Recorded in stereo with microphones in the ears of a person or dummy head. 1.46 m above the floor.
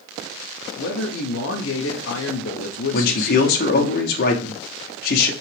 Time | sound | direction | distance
0.8 | a man speaking | 65° left (ahead or behind) | 0.7 m
2.9 | a man speaking | 45° left (ahead or behind) | 0.8 m